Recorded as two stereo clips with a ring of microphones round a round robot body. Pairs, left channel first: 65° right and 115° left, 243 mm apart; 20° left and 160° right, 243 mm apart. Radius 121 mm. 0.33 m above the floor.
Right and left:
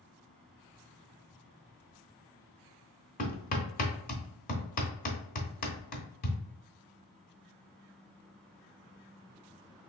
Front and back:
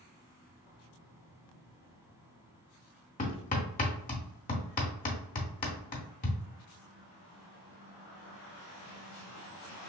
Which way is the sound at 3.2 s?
20° right.